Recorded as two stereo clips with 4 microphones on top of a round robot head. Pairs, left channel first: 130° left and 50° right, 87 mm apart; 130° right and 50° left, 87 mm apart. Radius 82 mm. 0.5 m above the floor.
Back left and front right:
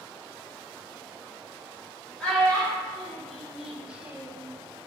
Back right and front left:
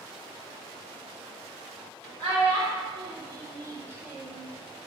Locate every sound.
2.2 s a child speaking: 50° left, 1.2 m; by 4.5 s 60° right, 0.5 m